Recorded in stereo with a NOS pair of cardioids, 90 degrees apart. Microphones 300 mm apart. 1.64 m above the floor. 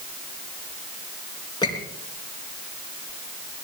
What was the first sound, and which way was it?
A squeak, 15° left.